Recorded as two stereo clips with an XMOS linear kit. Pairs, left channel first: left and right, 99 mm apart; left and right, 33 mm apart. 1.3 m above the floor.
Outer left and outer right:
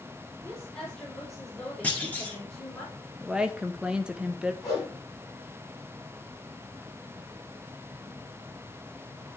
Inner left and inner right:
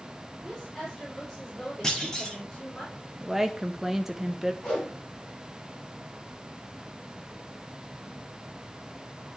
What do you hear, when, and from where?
0.4 s a woman speaking: 15° left (ahead or behind), 3.5 m
1.8 s a clunk: 15° left (ahead or behind), 1.4 m
3.2 s a woman speaking: 10° right (ahead or behind), 0.7 m
4.6 s a whoosh: 35° left (ahead or behind), 4.5 m